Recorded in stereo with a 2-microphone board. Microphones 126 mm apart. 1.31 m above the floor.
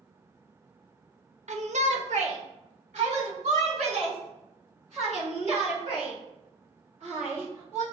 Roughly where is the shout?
Right.